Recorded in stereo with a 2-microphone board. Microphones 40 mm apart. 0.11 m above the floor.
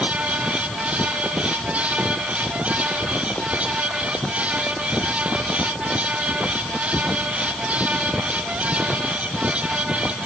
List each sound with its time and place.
Only background noise.